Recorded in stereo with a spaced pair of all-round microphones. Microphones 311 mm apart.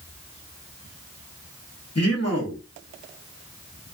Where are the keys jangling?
I don't hear keys jangling.